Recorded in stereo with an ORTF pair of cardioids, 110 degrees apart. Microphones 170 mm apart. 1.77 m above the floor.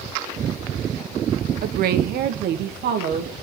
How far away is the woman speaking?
About 1.1 m.